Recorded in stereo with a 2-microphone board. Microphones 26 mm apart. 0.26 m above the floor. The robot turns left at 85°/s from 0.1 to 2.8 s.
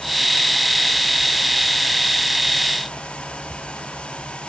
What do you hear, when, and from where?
Only background noise.